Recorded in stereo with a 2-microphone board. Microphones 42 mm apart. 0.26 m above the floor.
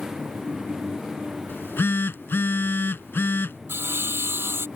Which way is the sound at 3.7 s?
70° right (ahead or behind).